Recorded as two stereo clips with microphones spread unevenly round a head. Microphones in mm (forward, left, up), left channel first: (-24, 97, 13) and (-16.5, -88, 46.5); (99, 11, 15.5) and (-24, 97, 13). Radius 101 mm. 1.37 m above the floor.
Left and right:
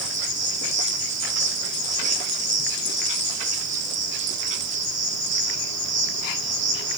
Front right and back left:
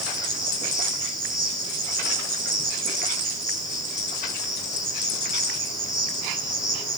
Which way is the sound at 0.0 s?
110° right.